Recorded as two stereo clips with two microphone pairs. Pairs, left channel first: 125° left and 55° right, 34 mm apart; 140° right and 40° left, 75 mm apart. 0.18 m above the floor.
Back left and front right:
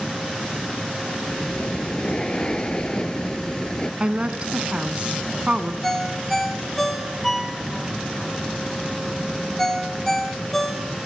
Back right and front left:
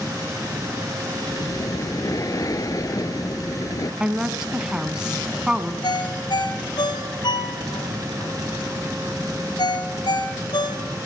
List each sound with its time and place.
1.3 s breathing: 175° right, 0.8 m
4.0 s a woman speaking: 35° right, 1.4 m
5.8 s a ringtone: 155° right, 2 m